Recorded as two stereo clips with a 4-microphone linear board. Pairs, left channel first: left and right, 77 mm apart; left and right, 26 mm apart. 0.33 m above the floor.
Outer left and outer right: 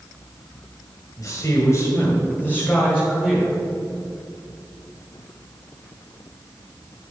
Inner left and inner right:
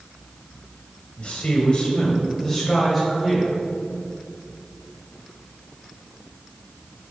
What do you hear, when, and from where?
1.2 s a man speaking: 45° left (ahead or behind), 2.0 m; by 3.5 s 5° left (ahead or behind), 2 m